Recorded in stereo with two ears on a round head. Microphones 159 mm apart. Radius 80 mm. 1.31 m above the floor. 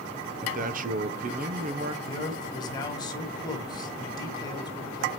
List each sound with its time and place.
0.4 s a man speaking: 45° right (ahead or behind), 0.7 m
2.0 s a man speaking: 25° left (ahead or behind), 1.5 m